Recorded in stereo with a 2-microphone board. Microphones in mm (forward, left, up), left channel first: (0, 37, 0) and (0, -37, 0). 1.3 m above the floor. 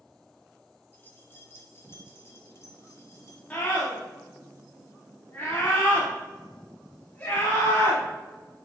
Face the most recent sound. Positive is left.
turn(degrees=25)  # may be behind; listen again after turning